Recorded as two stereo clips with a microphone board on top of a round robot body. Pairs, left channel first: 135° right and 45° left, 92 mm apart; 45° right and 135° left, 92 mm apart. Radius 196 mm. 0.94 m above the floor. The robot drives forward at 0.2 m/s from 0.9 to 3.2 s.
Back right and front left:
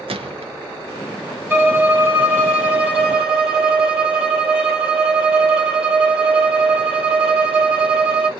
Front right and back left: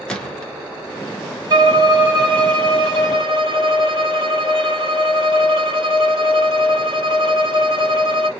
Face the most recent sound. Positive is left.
turn(degrees=125)